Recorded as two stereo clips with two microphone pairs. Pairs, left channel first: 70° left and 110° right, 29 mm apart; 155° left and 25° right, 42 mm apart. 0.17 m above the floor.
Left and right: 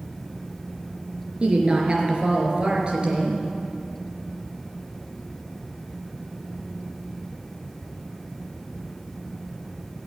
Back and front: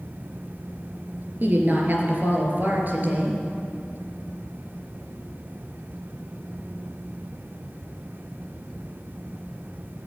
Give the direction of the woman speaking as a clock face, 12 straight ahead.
2 o'clock.